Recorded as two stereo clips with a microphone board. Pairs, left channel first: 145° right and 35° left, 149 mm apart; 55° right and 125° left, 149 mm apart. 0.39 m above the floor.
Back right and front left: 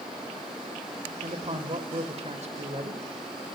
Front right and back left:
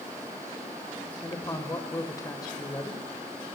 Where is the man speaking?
5° left, 1.4 m.